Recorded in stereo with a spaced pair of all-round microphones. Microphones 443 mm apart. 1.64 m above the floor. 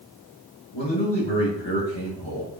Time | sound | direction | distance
0.7 | a man speaking | 70° left (ahead or behind) | 3.5 m